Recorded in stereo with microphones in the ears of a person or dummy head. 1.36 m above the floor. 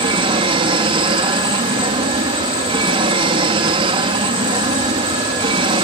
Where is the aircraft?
30° right (ahead or behind).